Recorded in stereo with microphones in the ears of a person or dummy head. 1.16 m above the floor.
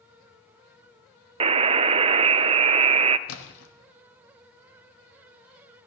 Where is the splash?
85° left, 1.3 m.